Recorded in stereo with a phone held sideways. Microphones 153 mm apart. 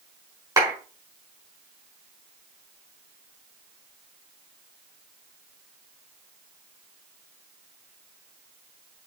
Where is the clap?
25° right (ahead or behind), 4.5 m.